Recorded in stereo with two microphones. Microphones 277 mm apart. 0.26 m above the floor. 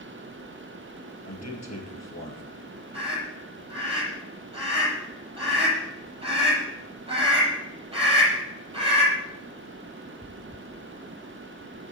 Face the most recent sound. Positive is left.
turn(degrees=-20)  # may be behind; listen again after turning